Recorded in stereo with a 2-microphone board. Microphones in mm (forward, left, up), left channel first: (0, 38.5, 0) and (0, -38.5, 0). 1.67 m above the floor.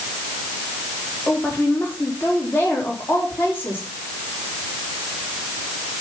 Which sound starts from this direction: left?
A woman speaking, at 1.3 s.